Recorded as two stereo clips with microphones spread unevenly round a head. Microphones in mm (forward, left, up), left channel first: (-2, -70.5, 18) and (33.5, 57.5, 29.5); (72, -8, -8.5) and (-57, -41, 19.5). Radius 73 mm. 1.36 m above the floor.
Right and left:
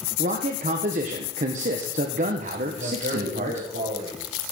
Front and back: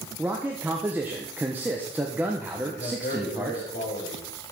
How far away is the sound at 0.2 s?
About 1.3 m.